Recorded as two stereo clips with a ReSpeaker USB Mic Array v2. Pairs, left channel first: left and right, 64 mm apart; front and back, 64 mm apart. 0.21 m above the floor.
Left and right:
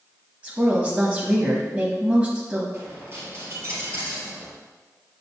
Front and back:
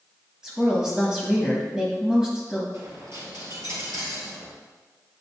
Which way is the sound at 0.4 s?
120° right.